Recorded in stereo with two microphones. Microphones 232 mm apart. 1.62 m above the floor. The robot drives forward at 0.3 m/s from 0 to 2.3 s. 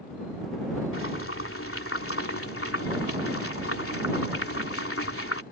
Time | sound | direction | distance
0.9 | boiling | 65° left (ahead or behind) | ?